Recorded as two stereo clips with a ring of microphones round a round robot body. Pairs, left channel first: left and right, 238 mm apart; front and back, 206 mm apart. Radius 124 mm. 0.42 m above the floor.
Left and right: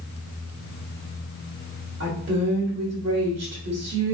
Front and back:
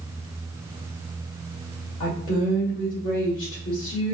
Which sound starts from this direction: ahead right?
A woman speaking, at 2.0 s.